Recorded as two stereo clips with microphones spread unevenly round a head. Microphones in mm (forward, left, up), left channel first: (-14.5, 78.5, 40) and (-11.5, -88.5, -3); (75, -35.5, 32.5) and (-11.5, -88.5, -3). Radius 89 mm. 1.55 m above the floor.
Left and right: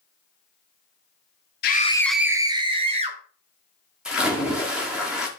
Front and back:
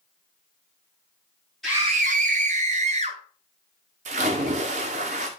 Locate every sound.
1.6 s a scream: 115° left, 0.7 m; by 3.2 s 145° right, 2 m
4.0 s a splash: 175° left, 1.8 m